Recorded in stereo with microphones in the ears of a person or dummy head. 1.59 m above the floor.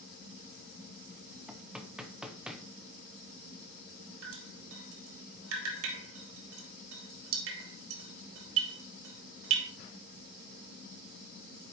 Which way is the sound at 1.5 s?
5° right (ahead or behind).